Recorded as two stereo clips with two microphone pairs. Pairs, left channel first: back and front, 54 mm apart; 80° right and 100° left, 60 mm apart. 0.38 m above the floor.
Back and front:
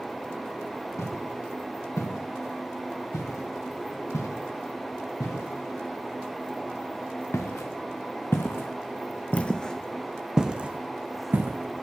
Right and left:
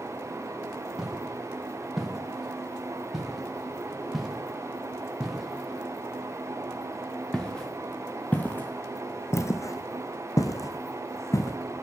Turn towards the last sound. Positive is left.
turn(degrees=-45)